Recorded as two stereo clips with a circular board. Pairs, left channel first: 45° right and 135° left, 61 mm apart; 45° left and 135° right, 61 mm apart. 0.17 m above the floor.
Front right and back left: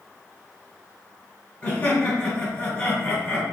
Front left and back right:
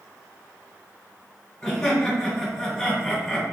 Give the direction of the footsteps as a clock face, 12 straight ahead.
No footsteps in this recording.